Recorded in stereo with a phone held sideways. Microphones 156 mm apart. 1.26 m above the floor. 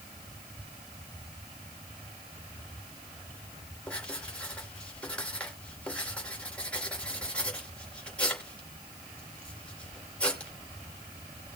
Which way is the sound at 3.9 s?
5° left (ahead or behind).